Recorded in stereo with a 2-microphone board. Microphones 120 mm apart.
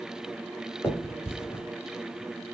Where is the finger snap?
20° left (ahead or behind), 1.2 m.